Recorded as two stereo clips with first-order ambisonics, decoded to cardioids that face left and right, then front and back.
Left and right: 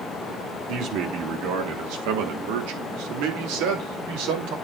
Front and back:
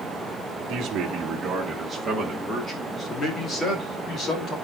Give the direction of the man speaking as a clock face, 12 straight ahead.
4 o'clock.